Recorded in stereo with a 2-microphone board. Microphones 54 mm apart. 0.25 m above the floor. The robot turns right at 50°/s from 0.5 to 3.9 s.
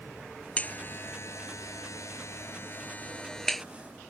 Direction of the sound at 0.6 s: 30° left (ahead or behind).